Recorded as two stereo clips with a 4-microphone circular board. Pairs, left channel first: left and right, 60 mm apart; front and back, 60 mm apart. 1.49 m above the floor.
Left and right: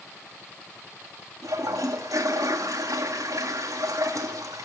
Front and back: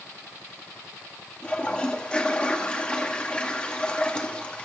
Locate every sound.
1.4 s a toilet flushing: 75° right, 2.0 m